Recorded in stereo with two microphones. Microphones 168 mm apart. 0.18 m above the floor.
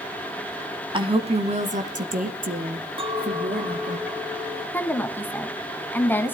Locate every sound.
0.9 s a woman speaking: 30° right (ahead or behind), 1.3 m; by 4.0 s 65° right (ahead or behind), 2.5 m
3.0 s a clink: 30° right (ahead or behind), 1.2 m
4.7 s a woman speaking: 10° left (ahead or behind), 1.5 m